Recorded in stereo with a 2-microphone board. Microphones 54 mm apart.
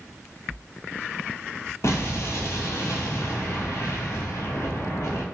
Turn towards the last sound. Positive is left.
turn(degrees=65)  # may be behind; listen again after turning